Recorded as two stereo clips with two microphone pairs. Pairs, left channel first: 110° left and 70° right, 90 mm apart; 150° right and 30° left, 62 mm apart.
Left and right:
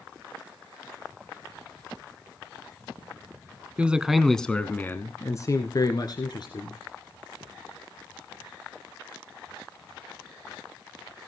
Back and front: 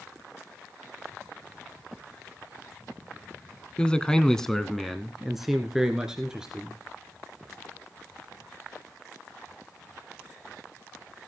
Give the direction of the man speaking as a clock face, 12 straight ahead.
4 o'clock.